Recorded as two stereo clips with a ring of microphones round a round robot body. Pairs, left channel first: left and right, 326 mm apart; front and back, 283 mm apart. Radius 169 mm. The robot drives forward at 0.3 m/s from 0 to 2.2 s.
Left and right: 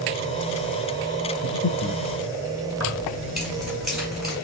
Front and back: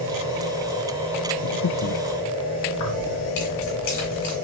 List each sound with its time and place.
1.4 s breathing: 30° left, 0.8 m; by 2.0 s 40° left, 0.7 m
2.7 s keys jangling: straight ahead, 2.5 m